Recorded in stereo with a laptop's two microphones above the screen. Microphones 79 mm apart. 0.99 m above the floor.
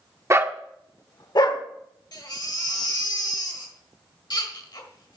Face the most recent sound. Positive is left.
turn(degrees=60)  # may be behind; listen again after turning